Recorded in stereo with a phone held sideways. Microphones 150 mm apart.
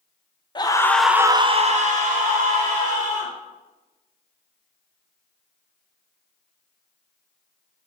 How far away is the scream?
About 0.7 m.